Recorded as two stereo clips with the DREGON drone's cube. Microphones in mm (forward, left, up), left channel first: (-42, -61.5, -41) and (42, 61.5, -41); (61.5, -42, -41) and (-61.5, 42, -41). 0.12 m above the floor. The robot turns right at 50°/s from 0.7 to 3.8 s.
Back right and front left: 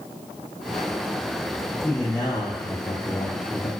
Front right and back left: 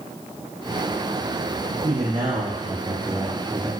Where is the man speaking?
155° left, 2.5 m; by 3.7 s 110° right, 2.5 m.